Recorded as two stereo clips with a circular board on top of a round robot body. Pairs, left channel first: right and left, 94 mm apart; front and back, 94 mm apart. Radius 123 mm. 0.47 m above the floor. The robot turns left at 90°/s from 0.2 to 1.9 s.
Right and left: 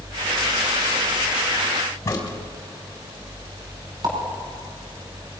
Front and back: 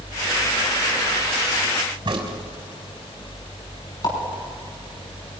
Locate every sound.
2.0 s a crack: 150° right, 3.5 m
4.0 s a pop: 45° left, 5.5 m